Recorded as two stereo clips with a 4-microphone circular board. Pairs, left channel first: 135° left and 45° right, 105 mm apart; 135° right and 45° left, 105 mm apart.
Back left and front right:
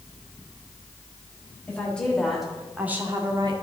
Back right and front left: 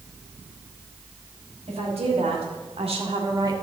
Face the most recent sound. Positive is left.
turn(degrees=-10)